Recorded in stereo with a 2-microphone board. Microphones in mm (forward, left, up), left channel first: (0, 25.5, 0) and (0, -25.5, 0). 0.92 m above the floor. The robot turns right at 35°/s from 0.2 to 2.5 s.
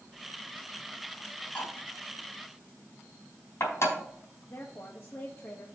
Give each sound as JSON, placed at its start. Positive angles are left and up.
{"t": 1.6, "sound": "cutlery clinking", "side_deg": 25, "distance_m": 4.5}
{"t": 4.5, "sound": "a woman speaking", "side_deg": 50, "distance_m": 1.2}